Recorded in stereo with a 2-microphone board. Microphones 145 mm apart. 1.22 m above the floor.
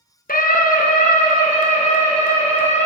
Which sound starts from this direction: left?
A scream, at 0.3 s.